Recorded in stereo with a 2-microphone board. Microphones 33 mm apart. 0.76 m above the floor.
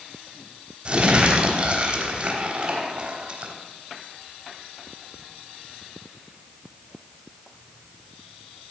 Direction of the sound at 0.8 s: 35° right (ahead or behind).